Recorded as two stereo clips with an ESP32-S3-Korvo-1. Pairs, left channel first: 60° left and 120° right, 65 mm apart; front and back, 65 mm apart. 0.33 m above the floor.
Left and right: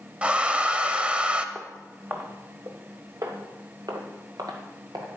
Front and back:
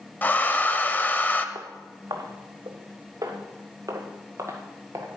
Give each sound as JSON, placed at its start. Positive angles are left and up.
{"t": 0.2, "sound": "a hair dryer", "azimuth_deg": -55, "distance_m": 0.6}
{"t": 1.6, "sound": "footsteps", "azimuth_deg": 175, "distance_m": 1.6}